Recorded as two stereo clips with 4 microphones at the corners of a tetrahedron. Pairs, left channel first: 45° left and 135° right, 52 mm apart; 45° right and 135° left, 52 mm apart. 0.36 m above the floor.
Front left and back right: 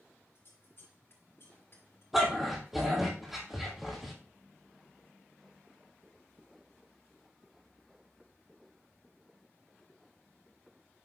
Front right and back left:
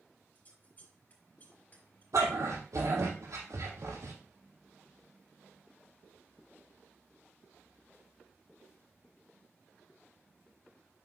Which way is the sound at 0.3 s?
10° left.